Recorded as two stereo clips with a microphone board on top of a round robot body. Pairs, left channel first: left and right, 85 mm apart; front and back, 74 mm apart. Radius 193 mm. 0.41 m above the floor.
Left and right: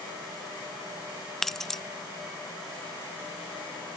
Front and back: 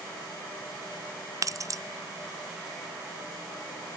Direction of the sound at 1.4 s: 175° left.